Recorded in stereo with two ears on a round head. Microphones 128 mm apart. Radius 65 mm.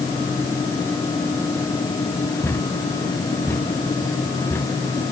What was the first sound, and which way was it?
A thud, 15° left (ahead or behind).